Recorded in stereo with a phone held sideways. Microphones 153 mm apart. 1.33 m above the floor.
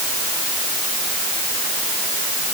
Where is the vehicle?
No vehicle in this recording.